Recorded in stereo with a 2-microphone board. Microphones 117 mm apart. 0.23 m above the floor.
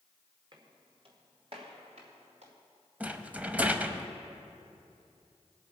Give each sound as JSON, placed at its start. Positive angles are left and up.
{"t": 0.5, "sound": "footsteps", "side_deg": -40, "distance_m": 2.5}
{"t": 3.0, "sound": "a rattle", "side_deg": -15, "distance_m": 0.6}